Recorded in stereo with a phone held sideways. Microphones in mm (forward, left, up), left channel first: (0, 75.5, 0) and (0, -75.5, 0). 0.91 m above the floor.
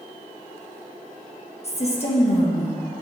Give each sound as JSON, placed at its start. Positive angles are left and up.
{"t": 1.6, "sound": "a woman speaking", "side_deg": 45, "distance_m": 1.1}